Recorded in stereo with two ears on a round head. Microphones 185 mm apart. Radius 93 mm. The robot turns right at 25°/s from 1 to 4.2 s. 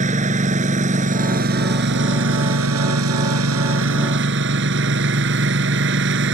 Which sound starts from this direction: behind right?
A lawn mower, at 0.0 s.